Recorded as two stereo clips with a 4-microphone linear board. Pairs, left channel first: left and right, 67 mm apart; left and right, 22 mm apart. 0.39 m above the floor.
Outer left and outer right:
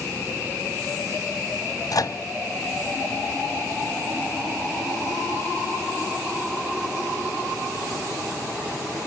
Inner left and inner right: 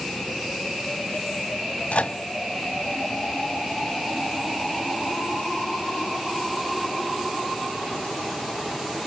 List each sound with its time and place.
1.9 s a microwave: 60° left (ahead or behind), 1.6 m